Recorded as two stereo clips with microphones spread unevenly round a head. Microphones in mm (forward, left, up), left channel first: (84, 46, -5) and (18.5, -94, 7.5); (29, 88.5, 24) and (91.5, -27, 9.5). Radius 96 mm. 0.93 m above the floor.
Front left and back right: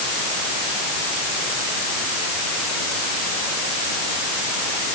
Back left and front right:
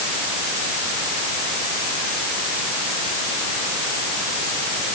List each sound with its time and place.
Only background noise.